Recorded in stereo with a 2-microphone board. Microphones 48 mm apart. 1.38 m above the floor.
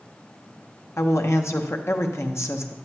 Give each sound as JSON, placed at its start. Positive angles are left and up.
{"t": 1.0, "sound": "a woman speaking", "side_deg": 65, "distance_m": 1.0}